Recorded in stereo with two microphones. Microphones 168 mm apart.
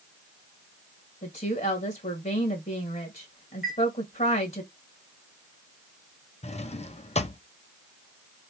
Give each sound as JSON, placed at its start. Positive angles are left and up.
{"t": 1.2, "sound": "a woman speaking", "side_deg": 55, "distance_m": 1.5}
{"t": 3.6, "sound": "a chime", "side_deg": 55, "distance_m": 2.5}
{"t": 6.4, "sound": "a drawer", "side_deg": 40, "distance_m": 0.5}